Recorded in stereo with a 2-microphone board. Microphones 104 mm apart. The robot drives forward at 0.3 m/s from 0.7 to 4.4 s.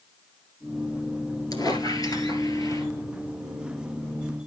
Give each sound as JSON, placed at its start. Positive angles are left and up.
{"t": 1.5, "sound": "a squeak", "side_deg": 40, "distance_m": 2.0}